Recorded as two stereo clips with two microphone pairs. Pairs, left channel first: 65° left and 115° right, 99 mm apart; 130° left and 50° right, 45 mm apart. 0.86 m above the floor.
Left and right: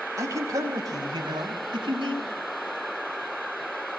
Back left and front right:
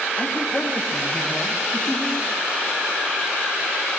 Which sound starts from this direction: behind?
A man speaking, at 0.2 s.